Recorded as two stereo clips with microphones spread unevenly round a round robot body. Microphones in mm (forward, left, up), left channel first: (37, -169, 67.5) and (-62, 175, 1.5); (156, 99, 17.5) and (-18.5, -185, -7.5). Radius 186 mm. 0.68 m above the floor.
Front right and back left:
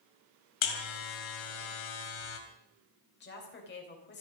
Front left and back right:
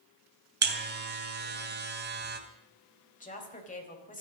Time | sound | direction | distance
0.6 | a buzzer | 60° right | 2.5 m
3.2 | a woman speaking | 10° right | 4 m